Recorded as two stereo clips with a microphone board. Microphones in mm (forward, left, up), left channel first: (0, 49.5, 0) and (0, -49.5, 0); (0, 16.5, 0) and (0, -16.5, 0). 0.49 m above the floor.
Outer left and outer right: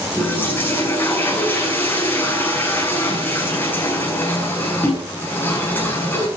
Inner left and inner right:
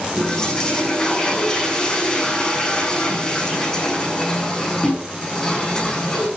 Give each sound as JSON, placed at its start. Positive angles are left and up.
{"t": 0.2, "sound": "a toilet flushing", "side_deg": 20, "distance_m": 7.0}